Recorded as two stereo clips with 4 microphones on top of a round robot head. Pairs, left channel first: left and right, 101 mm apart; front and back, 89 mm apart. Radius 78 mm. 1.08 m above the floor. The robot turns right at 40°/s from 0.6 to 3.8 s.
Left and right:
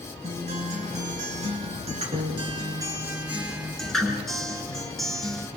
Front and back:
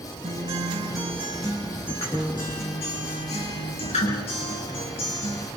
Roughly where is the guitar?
Behind right.